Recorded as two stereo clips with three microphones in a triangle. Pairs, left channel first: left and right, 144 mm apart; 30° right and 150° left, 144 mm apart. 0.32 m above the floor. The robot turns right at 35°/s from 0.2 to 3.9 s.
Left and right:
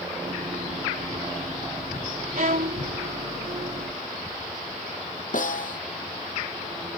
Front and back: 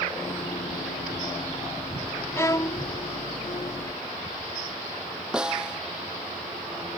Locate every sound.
2.4 s a violin: 100° right; by 2.8 s 85° right
5.3 s a snare drum: 65° left